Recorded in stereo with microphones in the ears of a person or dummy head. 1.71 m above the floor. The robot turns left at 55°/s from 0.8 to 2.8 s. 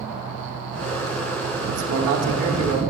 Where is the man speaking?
100° right, 1.3 m; by 2.8 s 160° right, 1.3 m.